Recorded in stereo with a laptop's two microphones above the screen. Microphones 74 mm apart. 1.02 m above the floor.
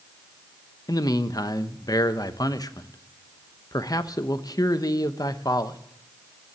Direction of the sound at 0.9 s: 55° left (ahead or behind).